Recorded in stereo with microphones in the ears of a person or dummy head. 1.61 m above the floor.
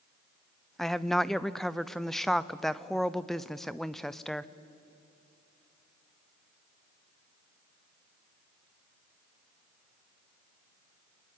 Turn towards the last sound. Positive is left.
turn(degrees=0)  # may be behind; listen again after turning